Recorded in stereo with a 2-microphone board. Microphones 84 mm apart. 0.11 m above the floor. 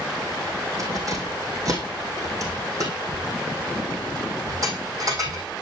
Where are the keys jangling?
45° right (ahead or behind), 3.5 m.